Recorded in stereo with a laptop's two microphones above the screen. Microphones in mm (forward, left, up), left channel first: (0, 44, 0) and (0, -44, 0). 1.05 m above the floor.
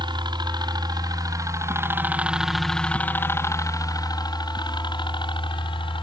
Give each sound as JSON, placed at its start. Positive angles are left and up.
{"t": 0.0, "sound": "a helicopter", "side_deg": -65}